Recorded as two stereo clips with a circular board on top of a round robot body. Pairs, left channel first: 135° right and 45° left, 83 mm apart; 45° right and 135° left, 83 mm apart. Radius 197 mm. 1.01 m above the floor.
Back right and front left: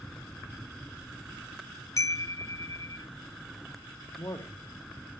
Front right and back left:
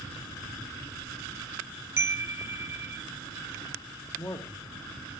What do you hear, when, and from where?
2.0 s a chime: 175° right, 0.8 m
4.2 s a man speaking: 80° right, 1.9 m